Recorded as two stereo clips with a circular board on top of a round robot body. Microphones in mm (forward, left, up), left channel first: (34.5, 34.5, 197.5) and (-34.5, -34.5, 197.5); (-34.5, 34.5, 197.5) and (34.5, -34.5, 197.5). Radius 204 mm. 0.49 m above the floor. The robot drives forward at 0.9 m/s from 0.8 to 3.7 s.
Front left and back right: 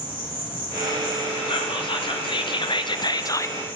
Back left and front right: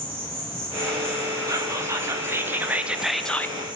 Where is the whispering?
10° left, 2 m; by 3.5 s 90° left, 0.8 m.